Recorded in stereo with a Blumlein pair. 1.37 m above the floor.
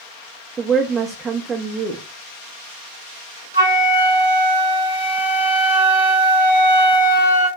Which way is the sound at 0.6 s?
20° right.